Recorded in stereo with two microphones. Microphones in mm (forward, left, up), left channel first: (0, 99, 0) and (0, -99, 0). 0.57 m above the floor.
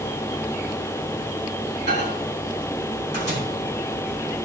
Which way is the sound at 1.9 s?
70° right (ahead or behind).